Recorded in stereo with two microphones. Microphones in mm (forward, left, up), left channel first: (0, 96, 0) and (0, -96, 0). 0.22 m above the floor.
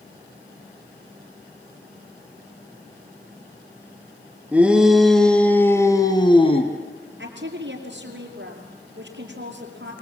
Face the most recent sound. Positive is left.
turn(degrees=-75)  # may be behind; listen again after turning